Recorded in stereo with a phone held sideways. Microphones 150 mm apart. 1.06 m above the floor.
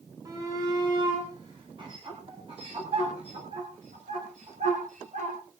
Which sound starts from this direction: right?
A shout, at 0.2 s.